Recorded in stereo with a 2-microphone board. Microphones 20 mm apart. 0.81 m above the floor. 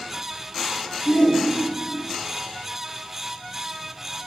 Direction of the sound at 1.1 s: 75° left (ahead or behind).